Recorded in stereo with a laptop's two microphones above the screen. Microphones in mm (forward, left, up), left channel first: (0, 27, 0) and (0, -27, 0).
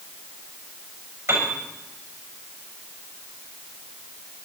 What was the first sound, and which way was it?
A piano, 55° right (ahead or behind).